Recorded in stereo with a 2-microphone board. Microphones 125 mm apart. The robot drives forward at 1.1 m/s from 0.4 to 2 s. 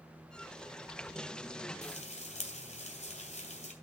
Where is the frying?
65° left (ahead or behind), 2.5 m; by 3.7 s 60° left (ahead or behind), 2.5 m.